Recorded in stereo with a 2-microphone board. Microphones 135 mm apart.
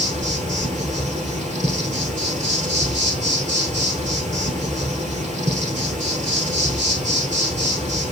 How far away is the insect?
About 1.2 m.